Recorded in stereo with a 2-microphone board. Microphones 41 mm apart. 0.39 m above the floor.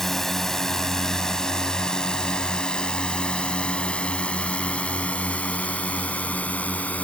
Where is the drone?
5° left (ahead or behind); by 7.0 s 40° left (ahead or behind).